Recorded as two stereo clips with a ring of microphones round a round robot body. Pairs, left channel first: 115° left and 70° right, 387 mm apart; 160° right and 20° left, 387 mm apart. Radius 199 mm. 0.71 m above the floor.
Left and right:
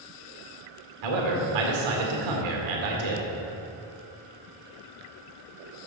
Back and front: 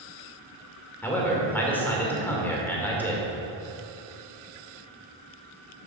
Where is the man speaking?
70° right, 2 m.